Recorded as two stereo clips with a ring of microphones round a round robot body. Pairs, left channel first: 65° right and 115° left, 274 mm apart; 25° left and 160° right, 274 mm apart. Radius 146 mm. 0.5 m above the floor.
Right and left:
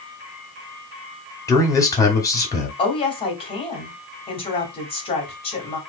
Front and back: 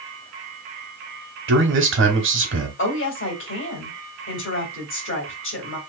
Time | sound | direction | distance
1.5 | a man speaking | 140° right | 1.3 m
2.8 | a woman speaking | 5° right | 1.9 m